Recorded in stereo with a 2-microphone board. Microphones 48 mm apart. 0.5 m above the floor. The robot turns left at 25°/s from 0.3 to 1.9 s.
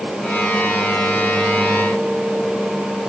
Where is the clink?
I don't hear a clink.